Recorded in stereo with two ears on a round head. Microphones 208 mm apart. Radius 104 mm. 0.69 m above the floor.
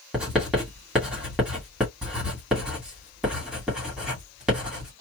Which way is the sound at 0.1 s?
5° right (ahead or behind).